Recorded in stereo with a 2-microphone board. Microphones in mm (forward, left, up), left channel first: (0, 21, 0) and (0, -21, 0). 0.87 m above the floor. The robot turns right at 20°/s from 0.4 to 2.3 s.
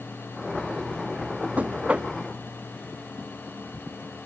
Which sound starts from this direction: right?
Knocking, at 1.6 s.